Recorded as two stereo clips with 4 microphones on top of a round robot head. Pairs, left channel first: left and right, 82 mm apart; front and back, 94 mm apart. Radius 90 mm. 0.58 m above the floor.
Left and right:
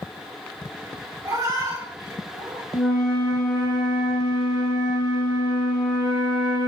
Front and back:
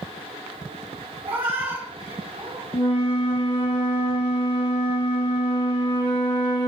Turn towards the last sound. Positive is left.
turn(degrees=10)